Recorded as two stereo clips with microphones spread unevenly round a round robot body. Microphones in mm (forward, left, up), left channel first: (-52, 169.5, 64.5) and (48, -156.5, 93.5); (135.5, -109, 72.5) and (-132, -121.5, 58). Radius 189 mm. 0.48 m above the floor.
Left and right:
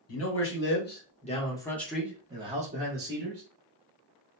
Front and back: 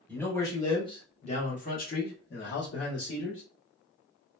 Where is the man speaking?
85° left, 1.4 m; by 3.4 s 25° right, 1.4 m.